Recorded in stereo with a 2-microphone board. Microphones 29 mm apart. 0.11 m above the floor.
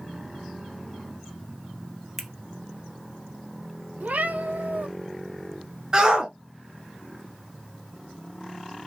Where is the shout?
30° right (ahead or behind), 1.5 m.